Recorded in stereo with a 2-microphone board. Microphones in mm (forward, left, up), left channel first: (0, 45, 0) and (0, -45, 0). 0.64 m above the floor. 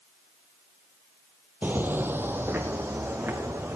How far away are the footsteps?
About 0.7 m.